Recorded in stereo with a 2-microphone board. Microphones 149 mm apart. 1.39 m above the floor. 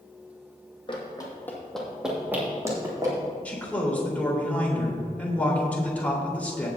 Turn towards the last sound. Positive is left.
turn(degrees=10)  # may be behind; listen again after turning